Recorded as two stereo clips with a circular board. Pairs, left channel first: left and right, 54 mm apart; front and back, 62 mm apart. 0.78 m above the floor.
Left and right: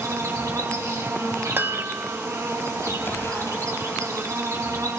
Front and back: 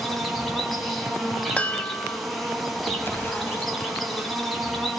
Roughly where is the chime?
Ahead right.